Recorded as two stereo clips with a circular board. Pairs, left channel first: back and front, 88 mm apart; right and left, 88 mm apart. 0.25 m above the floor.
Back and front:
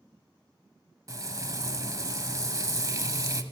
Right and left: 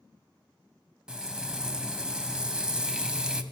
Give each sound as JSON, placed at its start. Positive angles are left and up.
{"t": 1.1, "sound": "frying", "azimuth_deg": 15, "distance_m": 0.8}